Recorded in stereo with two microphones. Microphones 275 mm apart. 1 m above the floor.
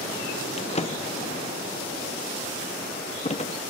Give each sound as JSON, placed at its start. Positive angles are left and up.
{"t": 0.6, "sound": "a drawer", "side_deg": 25, "distance_m": 0.5}